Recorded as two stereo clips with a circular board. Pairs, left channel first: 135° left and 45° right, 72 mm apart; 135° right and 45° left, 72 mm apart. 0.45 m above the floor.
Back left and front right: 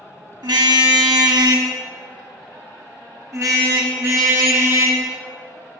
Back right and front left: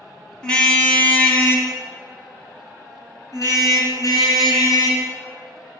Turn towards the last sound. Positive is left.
turn(degrees=-105)